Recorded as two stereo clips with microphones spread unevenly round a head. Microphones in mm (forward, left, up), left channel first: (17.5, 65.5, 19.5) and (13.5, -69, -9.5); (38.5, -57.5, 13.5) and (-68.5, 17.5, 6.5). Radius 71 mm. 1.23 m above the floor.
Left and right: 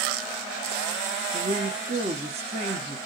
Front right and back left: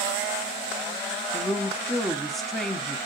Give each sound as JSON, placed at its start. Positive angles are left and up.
{"t": 1.3, "sound": "a woman speaking", "azimuth_deg": -125, "distance_m": 0.8}